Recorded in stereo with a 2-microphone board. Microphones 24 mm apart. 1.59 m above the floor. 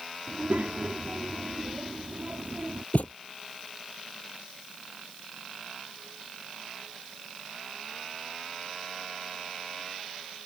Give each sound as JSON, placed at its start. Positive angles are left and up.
{"t": 0.3, "sound": "a child speaking", "side_deg": -75}
{"t": 2.9, "sound": "a thud", "side_deg": 70}